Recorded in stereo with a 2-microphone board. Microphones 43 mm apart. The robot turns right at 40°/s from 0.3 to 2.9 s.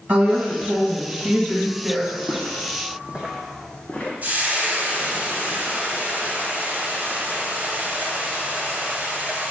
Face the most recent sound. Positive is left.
turn(degrees=-40)  # may be behind; listen again after turning